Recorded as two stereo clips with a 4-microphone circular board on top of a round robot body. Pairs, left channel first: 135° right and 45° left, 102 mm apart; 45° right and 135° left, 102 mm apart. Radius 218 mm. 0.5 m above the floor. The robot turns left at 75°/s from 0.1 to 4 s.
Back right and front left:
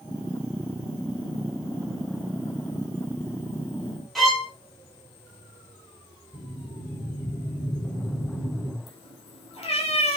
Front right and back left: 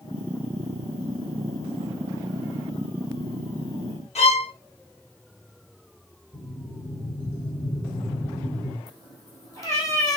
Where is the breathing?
100° right, 4.5 m.